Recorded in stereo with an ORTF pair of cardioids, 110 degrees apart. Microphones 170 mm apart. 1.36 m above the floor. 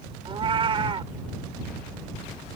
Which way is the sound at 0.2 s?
35° right.